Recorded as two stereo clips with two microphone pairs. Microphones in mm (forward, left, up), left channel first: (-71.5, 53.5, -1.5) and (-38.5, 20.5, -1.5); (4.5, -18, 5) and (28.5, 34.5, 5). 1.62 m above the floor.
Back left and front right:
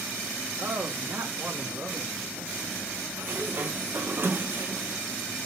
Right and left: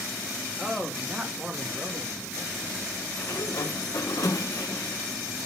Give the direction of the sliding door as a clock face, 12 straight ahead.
3 o'clock.